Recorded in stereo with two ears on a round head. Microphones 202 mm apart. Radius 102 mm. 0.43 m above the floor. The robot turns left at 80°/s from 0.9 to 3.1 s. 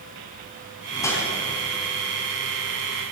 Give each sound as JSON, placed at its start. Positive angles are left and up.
{"t": 0.9, "sound": "a whoosh", "side_deg": 25, "distance_m": 2.0}